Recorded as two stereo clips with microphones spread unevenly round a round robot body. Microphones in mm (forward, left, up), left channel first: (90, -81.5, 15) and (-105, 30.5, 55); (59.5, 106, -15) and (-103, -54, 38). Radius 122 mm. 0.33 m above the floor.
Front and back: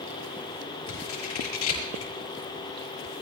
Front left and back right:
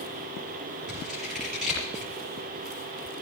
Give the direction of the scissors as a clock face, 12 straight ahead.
2 o'clock.